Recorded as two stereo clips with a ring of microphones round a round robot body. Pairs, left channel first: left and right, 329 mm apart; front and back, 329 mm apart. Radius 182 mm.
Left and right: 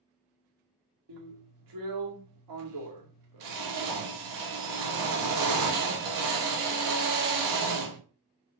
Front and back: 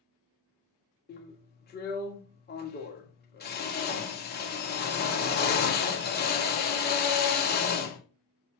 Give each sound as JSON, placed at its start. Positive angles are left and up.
{"t": 1.1, "sound": "a drill", "azimuth_deg": -60, "distance_m": 2.0}